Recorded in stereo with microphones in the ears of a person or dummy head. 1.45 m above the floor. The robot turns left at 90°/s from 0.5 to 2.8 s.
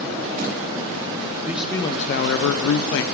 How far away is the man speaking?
About 0.8 m.